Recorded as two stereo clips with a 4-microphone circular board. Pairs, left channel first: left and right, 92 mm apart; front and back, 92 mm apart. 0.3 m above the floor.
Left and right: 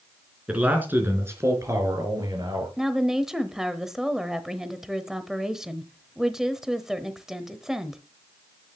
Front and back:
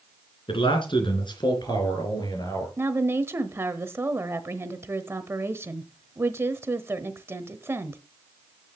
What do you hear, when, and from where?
0.5 s a man speaking: 15° right, 3 m; by 2.7 s 45° right, 4.5 m
2.8 s a woman speaking: 170° right, 1.0 m